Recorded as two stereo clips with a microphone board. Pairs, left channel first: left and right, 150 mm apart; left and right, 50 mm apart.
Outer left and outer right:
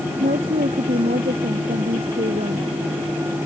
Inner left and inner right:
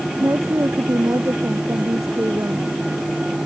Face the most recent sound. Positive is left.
turn(degrees=-80)